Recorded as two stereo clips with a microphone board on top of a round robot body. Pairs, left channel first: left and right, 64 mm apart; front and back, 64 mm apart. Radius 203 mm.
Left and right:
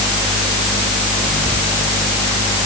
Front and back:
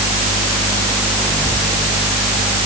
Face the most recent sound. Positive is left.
No sound to turn to.